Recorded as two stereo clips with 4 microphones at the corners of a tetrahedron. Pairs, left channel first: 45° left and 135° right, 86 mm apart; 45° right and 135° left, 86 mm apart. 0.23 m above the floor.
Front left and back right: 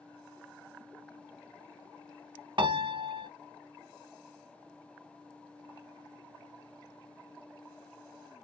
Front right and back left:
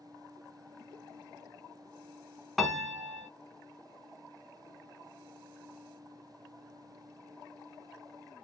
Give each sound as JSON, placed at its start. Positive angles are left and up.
{"t": 2.6, "sound": "a piano", "azimuth_deg": -135, "distance_m": 0.7}